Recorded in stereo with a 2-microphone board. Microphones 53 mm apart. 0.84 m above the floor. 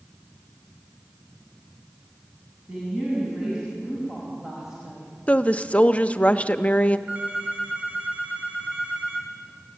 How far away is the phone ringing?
About 4.5 m.